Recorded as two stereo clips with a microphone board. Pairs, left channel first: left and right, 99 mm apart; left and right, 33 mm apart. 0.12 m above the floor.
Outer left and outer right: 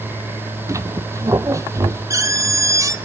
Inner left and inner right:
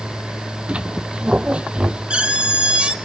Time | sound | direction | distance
0.7 | a squeak | 35° right (ahead or behind) | 0.9 m